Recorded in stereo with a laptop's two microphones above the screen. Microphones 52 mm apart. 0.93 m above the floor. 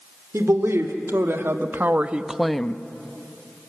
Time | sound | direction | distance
0.3 | a woman speaking | 65° right (ahead or behind) | 2 m